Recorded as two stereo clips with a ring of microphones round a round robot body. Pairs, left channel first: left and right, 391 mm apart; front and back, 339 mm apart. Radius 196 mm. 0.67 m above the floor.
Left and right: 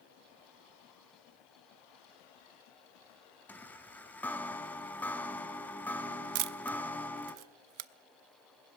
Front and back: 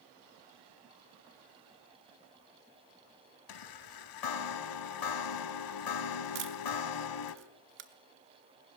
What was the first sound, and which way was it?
A chime, 5° left.